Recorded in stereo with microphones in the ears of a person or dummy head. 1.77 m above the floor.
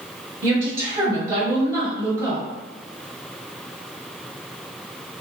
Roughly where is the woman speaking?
Centre.